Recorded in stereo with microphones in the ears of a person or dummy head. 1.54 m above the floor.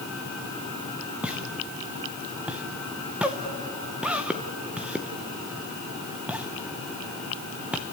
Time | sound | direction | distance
1.2 | a pop | 10° right (ahead or behind) | 0.8 m